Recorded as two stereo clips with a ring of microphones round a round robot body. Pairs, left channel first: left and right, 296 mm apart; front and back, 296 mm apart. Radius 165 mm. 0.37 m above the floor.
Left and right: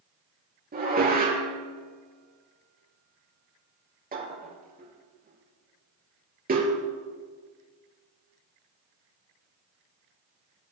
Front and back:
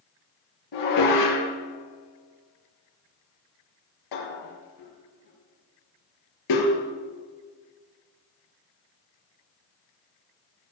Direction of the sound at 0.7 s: 30° right.